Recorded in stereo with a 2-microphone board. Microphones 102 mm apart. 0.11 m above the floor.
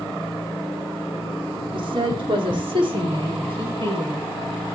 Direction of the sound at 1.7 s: 50° right (ahead or behind).